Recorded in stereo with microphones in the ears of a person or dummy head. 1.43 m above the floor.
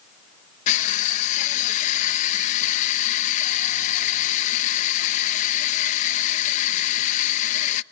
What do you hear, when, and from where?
0.7 s crushing: 45° left (ahead or behind), 0.7 m